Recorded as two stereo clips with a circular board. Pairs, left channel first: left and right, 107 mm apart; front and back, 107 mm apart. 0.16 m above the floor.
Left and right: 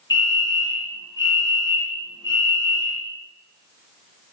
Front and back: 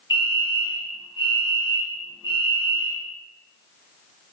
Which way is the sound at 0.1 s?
45° left.